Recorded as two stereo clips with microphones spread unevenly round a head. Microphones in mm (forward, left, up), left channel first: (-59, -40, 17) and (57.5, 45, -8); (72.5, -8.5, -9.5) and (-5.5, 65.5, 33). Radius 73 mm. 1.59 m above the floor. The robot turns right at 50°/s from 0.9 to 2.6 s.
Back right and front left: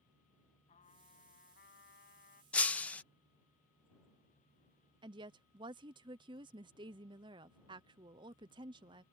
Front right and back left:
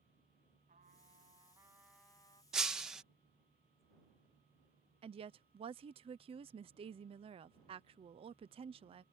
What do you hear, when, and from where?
0.7 s a trumpet: 170° left; by 2.4 s 115° right
2.5 s breaking glass: 165° left
5.0 s a woman speaking: 95° left